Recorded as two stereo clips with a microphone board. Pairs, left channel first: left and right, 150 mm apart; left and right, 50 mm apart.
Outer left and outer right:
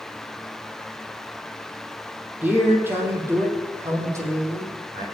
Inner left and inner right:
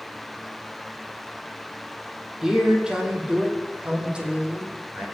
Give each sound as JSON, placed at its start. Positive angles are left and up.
{"t": 2.4, "sound": "a man speaking", "side_deg": -10, "distance_m": 4.0}